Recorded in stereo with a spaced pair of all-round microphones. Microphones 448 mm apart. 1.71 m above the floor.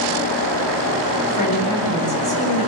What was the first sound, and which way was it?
A woman speaking, 50° right (ahead or behind).